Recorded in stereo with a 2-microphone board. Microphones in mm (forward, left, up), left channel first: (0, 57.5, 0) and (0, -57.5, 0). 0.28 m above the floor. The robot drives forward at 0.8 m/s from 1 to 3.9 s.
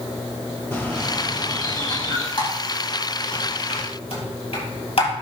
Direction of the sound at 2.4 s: 50° left (ahead or behind).